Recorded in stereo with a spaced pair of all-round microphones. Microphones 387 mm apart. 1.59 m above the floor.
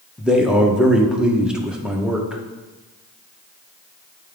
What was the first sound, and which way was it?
A man speaking, centre (ahead or behind).